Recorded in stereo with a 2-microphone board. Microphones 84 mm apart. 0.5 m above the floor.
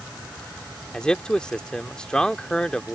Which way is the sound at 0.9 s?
10° left (ahead or behind).